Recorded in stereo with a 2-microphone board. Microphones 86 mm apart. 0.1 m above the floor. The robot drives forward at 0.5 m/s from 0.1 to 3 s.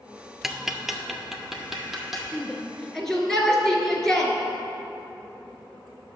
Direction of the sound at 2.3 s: 5° left (ahead or behind).